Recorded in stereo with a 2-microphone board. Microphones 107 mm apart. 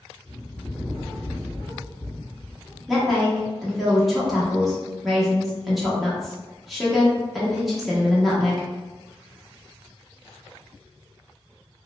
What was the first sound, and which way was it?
A bird, 15° left (ahead or behind).